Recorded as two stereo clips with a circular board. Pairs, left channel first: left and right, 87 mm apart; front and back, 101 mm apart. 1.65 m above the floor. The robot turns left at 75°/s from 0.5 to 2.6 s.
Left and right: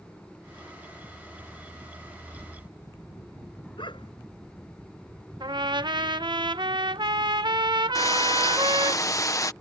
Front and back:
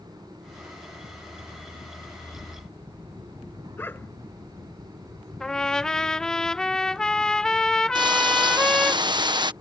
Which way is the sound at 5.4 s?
80° right.